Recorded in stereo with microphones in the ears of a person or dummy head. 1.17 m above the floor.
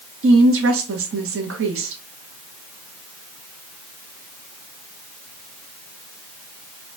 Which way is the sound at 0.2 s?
65° right (ahead or behind).